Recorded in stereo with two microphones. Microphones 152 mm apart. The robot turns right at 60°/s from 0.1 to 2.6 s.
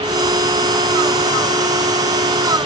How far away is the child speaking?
No child speaking in this recording.